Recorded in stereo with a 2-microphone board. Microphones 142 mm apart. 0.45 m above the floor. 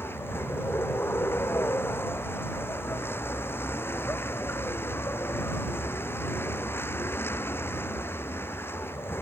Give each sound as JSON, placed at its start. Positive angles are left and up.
{"t": 0.0, "sound": "a vehicle", "side_deg": 15}